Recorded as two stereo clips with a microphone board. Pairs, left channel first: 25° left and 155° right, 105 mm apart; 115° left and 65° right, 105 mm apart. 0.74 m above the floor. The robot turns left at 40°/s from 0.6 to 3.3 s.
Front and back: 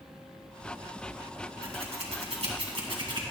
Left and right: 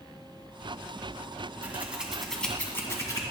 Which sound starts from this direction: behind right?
Scissors, at 1.6 s.